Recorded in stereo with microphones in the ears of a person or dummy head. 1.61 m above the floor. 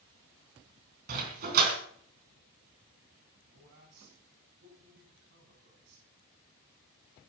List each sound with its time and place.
1.1 s a dog barking: 50° right (ahead or behind), 3.5 m
3.5 s a man speaking: 65° right (ahead or behind), 10 m